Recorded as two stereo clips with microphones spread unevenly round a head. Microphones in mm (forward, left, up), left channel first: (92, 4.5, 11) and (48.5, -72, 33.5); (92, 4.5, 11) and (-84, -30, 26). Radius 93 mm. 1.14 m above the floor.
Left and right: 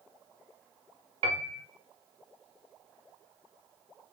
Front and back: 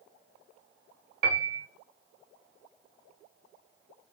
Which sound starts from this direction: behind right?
A piano, at 1.2 s.